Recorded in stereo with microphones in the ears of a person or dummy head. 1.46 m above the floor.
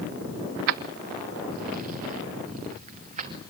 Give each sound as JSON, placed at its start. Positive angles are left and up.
{"t": 0.7, "sound": "keys jangling", "side_deg": -50, "distance_m": 0.5}